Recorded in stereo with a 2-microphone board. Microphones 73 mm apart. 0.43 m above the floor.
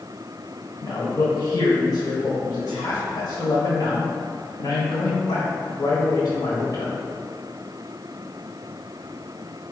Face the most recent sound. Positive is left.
turn(degrees=55)  # may be behind; listen again after turning